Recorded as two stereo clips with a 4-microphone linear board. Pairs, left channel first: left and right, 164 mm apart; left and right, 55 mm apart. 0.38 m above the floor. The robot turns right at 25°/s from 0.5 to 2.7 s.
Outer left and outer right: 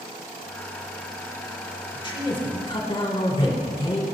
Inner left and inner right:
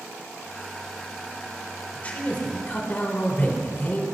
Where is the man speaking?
30° left (ahead or behind), 1.4 m.